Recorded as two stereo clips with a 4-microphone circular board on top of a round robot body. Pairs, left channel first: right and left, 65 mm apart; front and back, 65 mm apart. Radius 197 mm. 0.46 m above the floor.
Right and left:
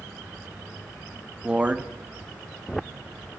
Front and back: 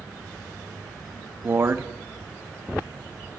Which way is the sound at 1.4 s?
150° left.